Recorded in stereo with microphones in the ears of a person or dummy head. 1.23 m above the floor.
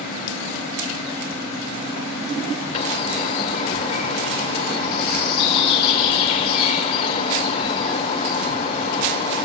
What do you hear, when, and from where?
2.7 s a bird: 30° left (ahead or behind), 1.7 m